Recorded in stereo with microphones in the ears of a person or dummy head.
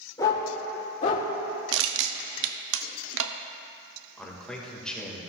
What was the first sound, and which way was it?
A dog barking, 15° left (ahead or behind).